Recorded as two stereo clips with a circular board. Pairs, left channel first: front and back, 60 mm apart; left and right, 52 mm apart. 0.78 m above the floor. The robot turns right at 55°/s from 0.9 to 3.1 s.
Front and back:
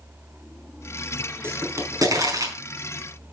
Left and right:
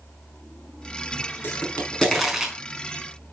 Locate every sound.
1.4 s a pop: 135° left, 4.5 m; by 2.5 s 165° right, 4.5 m